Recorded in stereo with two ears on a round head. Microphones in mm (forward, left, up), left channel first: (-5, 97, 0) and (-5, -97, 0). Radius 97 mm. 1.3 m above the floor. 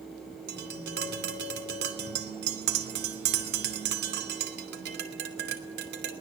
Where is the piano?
I don't hear a piano.